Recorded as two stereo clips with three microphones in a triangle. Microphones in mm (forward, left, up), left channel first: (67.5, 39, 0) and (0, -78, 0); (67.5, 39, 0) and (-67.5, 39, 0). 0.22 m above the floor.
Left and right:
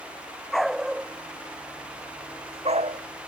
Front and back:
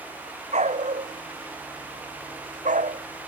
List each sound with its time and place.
0.5 s a dog barking: 145° left; by 3.0 s 150° right